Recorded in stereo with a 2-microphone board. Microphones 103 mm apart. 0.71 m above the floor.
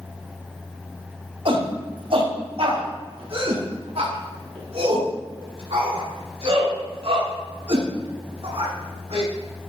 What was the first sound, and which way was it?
A shout, 60° right (ahead or behind).